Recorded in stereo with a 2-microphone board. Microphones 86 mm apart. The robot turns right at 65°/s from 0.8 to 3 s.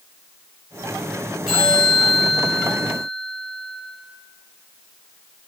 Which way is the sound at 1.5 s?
10° right.